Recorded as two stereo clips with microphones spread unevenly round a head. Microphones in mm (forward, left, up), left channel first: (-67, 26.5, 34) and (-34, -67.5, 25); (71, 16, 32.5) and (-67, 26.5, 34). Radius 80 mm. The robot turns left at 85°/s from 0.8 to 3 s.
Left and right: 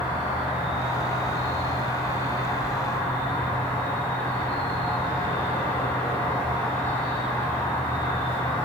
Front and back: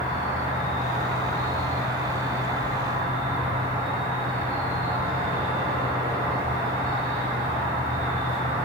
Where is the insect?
10° left, 1.7 m; by 8.7 s straight behind, 1.7 m.